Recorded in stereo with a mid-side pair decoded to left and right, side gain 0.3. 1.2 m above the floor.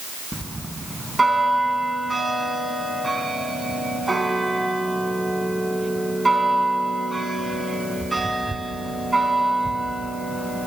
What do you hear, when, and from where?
0.3 s a bell: 25° right, 4 m